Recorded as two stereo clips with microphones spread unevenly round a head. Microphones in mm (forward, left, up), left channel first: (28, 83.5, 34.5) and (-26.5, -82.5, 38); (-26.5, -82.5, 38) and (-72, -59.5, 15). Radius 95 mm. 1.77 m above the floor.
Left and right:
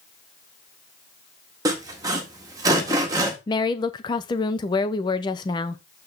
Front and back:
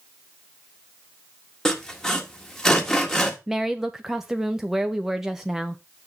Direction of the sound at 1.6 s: 50° right.